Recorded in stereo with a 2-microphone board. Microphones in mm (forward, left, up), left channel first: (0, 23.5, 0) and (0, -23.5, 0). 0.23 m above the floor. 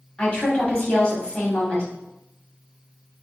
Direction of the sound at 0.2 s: 25° left (ahead or behind).